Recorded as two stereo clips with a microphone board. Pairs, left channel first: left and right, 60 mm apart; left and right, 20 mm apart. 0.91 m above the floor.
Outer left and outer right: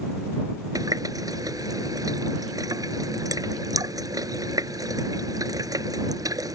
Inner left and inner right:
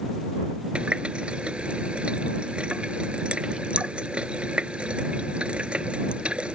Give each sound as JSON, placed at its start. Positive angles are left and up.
{"t": 0.8, "sound": "a running tap", "side_deg": -90}